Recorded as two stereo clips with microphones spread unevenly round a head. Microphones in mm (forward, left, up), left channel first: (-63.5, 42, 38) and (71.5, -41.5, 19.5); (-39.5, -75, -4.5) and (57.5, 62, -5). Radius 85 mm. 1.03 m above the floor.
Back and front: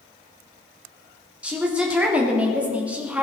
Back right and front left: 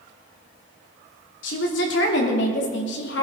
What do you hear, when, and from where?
1.4 s a woman speaking: 115° right, 3.5 m; by 3.2 s 110° right, 2.5 m